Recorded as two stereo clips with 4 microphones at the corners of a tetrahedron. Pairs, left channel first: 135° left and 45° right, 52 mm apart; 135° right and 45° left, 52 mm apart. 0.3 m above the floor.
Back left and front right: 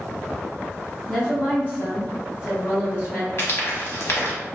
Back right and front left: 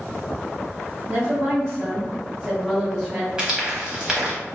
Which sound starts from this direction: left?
A woman speaking, at 1.1 s.